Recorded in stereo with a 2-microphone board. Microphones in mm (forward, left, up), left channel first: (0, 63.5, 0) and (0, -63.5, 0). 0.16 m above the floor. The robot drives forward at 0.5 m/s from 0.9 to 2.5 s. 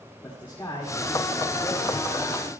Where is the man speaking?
20° left (ahead or behind), 8.5 m; by 2.5 s 15° left (ahead or behind), 9 m.